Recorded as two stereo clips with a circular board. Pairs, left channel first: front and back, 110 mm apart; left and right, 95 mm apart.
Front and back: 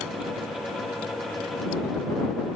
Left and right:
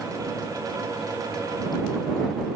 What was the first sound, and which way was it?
Only background noise.